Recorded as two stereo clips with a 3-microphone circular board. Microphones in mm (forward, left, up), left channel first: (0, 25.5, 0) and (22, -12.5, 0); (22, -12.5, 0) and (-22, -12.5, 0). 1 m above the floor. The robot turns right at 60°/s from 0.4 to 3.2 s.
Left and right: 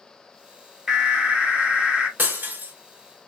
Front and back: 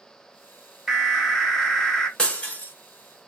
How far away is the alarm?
About 0.8 m.